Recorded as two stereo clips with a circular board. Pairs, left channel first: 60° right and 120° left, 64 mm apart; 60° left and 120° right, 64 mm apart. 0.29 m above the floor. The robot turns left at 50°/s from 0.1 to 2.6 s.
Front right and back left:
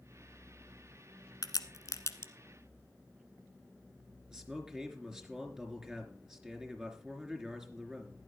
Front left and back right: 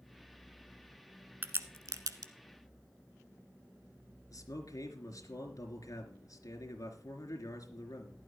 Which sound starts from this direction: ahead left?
A man speaking, at 4.3 s.